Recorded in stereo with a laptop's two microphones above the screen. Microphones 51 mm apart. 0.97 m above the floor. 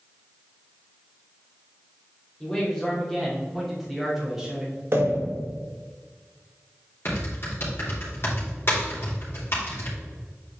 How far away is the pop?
About 1.7 m.